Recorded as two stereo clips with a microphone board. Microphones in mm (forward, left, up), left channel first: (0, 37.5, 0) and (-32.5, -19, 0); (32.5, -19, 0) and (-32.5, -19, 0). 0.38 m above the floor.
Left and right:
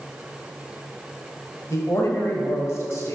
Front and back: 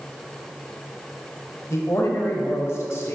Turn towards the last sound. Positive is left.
turn(degrees=30)